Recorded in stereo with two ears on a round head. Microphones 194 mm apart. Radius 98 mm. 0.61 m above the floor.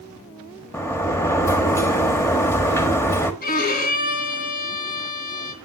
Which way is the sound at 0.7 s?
10° left (ahead or behind).